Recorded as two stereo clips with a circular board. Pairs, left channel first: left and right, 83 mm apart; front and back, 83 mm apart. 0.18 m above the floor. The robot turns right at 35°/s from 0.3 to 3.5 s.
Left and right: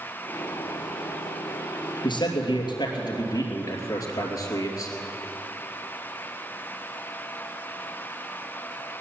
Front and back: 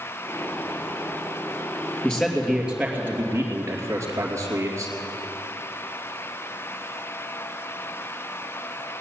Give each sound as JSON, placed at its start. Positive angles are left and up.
{"t": 2.0, "sound": "a man speaking", "azimuth_deg": 80, "distance_m": 3.0}